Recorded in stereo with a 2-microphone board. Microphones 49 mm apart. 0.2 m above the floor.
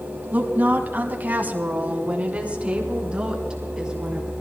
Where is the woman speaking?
35° right (ahead or behind), 2 m; by 4.3 s 15° right (ahead or behind), 4 m.